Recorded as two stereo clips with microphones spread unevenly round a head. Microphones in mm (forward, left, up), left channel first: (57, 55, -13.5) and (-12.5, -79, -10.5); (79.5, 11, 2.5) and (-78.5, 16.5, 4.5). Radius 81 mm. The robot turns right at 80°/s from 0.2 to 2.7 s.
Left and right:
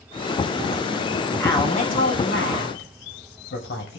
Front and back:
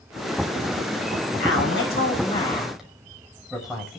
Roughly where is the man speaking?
Ahead.